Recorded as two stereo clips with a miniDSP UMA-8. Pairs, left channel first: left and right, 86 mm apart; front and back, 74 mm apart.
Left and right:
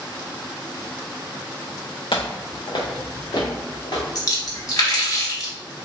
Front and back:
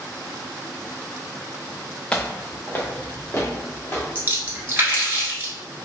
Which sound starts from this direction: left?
Footsteps, at 2.1 s.